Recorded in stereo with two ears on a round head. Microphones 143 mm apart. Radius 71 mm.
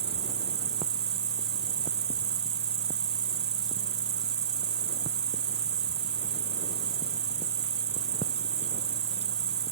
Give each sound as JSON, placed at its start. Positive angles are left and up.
{"t": 0.0, "sound": "an insect", "side_deg": -40}